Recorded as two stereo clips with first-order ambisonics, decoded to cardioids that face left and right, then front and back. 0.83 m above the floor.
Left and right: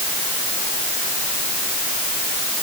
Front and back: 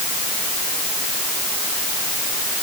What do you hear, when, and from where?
Only background noise.